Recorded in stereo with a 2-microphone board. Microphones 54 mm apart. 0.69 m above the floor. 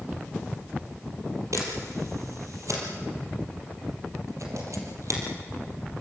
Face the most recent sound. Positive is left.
turn(degrees=-80)